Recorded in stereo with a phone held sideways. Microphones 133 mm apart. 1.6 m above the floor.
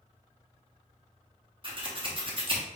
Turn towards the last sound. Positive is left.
turn(degrees=-40)  # may be behind; listen again after turning